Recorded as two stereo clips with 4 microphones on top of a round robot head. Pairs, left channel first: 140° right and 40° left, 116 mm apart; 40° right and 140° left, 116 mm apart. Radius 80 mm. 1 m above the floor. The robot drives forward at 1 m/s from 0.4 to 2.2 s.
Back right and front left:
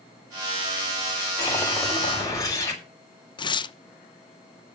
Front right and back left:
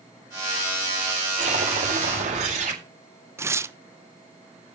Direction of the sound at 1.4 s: 155° left.